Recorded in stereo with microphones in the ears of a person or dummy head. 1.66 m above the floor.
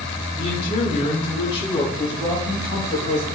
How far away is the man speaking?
About 5 m.